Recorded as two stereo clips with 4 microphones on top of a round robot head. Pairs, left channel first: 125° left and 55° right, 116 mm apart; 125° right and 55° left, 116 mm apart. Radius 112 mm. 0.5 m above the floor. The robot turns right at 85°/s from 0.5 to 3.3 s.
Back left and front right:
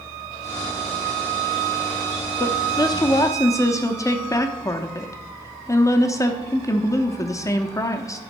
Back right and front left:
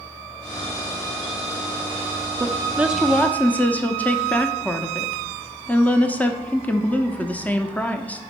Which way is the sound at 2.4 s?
90° left.